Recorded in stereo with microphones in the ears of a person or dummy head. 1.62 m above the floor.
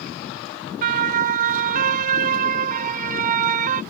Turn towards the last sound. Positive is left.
turn(degrees=-45)  # may be behind; listen again after turning